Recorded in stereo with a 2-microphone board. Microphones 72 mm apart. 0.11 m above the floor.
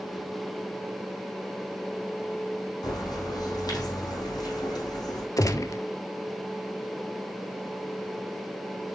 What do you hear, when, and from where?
2.8 s a bird: 70° left (ahead or behind), 3.5 m
5.4 s a gunshot: 55° left (ahead or behind), 0.7 m